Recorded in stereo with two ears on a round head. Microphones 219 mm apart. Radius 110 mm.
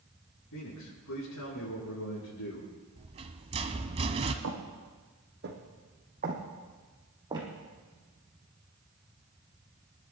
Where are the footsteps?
55° right (ahead or behind), 3 m; by 7.5 s 15° right (ahead or behind), 3 m.